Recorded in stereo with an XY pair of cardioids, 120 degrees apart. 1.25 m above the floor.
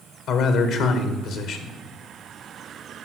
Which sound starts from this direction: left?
A man speaking, at 0.3 s.